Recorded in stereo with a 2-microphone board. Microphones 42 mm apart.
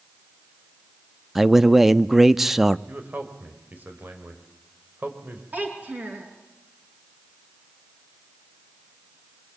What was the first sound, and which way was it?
A man speaking, 5° right (ahead or behind).